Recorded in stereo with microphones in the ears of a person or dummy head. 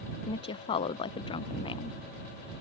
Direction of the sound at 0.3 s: 35° left (ahead or behind).